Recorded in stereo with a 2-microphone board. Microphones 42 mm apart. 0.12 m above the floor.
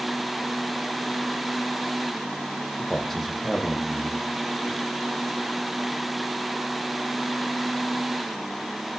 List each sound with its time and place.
2.8 s a man speaking: centre (ahead or behind), 5 m